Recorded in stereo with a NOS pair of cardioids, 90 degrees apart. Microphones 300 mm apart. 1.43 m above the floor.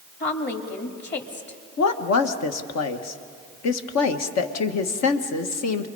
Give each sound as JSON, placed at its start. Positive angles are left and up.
{"t": 0.2, "sound": "a woman speaking", "azimuth_deg": 40, "distance_m": 3.0}
{"t": 1.8, "sound": "a woman speaking", "azimuth_deg": 70, "distance_m": 1.5}